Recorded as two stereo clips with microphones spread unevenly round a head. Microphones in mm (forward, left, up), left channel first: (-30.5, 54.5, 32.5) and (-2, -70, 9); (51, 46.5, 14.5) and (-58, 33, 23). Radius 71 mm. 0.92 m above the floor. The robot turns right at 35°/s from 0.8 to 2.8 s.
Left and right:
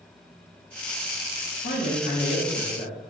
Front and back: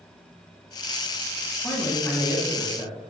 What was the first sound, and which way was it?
A man speaking, 75° left.